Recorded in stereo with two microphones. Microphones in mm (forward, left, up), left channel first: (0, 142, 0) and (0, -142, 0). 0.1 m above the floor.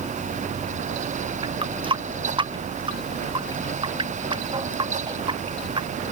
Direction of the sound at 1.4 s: 15° right (ahead or behind).